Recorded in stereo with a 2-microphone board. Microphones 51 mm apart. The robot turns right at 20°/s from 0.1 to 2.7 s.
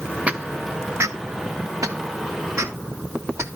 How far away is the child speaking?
No child speaking in this recording.